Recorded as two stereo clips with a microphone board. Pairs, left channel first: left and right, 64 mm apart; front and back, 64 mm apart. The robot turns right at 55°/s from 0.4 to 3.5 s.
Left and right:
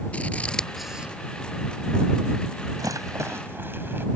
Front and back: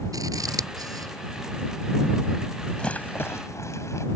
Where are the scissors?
160° left; by 1.1 s 160° right.